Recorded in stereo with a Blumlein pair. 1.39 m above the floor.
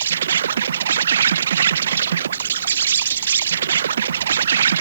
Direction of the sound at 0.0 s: 65° right.